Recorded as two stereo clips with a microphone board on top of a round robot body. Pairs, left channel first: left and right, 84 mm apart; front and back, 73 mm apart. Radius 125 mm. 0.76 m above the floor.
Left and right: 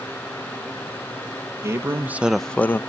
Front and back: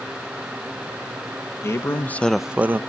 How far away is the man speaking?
About 1.0 m.